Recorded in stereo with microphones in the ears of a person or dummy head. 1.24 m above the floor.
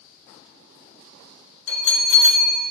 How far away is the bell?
About 3 m.